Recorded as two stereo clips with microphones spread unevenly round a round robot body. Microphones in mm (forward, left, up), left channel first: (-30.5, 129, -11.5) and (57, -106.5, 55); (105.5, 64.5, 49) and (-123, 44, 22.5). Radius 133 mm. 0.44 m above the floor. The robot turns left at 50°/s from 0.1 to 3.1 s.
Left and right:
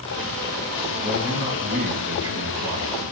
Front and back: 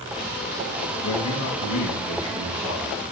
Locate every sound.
1.0 s a man speaking: 30° left, 4.5 m; by 3.1 s 75° right, 4.5 m